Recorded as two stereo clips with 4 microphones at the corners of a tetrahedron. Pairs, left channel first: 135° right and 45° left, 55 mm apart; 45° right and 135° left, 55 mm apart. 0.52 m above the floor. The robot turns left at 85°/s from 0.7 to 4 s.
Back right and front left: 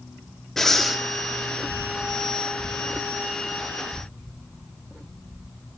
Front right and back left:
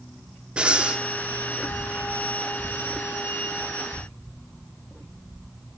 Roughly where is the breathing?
Behind left.